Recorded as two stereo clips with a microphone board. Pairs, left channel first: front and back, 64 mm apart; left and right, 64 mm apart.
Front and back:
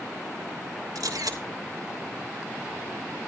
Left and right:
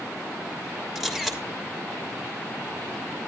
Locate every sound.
0.9 s a camera shutter: 175° right, 3 m